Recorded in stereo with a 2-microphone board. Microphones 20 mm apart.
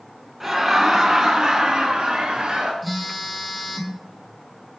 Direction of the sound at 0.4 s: 10° right (ahead or behind).